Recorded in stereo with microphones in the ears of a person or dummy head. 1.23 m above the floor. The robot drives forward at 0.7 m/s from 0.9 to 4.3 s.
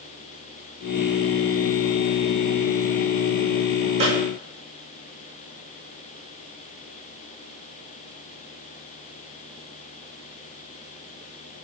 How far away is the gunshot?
About 5.5 m.